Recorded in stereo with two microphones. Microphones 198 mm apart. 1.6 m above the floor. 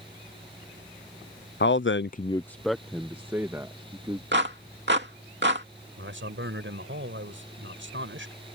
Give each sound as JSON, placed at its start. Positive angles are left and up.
{"t": 1.6, "sound": "a man speaking", "side_deg": 65}
{"t": 4.3, "sound": "a clap", "side_deg": -65}
{"t": 6.0, "sound": "a man speaking", "side_deg": -80}